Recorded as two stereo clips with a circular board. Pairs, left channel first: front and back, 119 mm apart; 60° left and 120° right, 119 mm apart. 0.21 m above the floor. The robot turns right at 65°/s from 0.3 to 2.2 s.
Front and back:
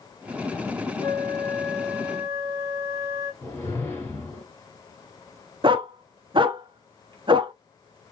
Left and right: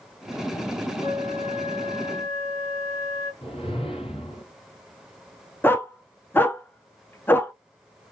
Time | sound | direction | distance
1.0 | a flute | 40° left | 2 m
3.4 | a whoosh | 60° left | 2 m
5.6 | a dog barking | 135° left | 0.6 m